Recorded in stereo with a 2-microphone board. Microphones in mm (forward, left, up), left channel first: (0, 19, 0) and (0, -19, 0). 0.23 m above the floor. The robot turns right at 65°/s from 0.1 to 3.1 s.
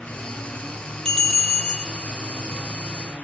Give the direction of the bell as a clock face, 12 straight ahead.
7 o'clock.